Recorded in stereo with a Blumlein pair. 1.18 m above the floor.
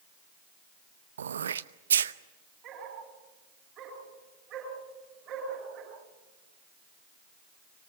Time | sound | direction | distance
1.2 | throat clearing | 65° right | 0.8 m
2.6 | a dog barking | 30° right | 7.5 m